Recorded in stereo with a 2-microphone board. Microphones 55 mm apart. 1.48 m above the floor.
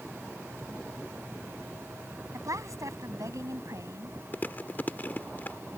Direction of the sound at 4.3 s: 35° left (ahead or behind).